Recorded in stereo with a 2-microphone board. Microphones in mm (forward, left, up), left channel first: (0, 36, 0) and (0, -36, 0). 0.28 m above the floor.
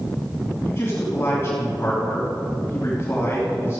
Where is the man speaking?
35° left (ahead or behind), 2.5 m.